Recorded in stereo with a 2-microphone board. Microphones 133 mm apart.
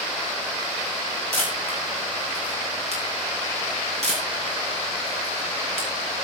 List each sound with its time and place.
1.3 s a camera shutter: 50° right (ahead or behind), 9 m